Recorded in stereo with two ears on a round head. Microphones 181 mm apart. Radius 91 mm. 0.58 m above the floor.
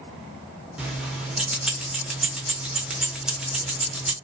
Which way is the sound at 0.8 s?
5° right (ahead or behind).